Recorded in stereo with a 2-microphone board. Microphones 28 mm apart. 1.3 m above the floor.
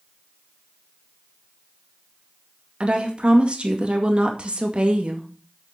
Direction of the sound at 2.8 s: 45° right (ahead or behind).